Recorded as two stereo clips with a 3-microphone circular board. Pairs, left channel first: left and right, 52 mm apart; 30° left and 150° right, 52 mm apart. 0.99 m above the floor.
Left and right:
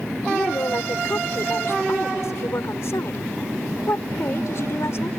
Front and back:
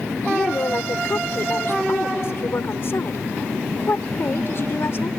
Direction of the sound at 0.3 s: 65° left.